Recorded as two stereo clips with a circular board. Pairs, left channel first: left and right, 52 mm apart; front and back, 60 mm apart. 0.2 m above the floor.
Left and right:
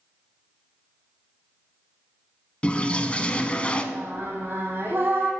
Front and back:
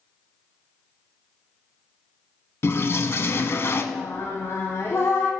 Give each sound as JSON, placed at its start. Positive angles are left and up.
{"t": 2.6, "sound": "a toilet flushing", "azimuth_deg": 30, "distance_m": 0.5}
{"t": 3.9, "sound": "singing", "azimuth_deg": -40, "distance_m": 1.6}